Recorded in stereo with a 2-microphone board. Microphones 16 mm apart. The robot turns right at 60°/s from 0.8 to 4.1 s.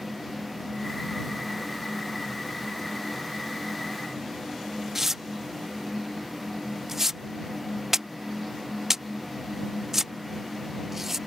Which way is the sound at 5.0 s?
25° right (ahead or behind).